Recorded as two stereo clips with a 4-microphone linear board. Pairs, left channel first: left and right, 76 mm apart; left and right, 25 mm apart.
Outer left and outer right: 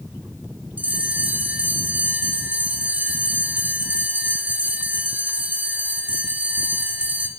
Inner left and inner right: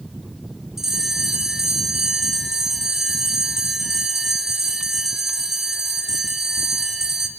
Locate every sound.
0.8 s a bell: 20° right (ahead or behind), 3 m